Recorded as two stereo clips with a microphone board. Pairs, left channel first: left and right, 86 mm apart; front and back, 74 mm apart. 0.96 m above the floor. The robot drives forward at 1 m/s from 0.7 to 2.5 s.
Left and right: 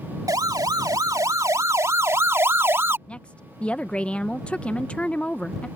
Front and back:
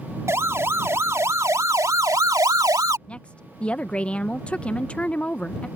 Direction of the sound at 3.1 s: 40° left.